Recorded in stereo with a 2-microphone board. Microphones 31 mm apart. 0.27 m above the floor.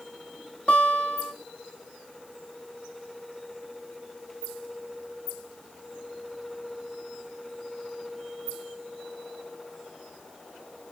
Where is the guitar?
40° left (ahead or behind), 2.0 m.